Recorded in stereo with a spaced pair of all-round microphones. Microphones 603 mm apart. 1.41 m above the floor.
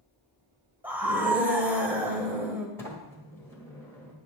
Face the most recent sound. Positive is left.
turn(degrees=5)  # may be behind; listen again after turning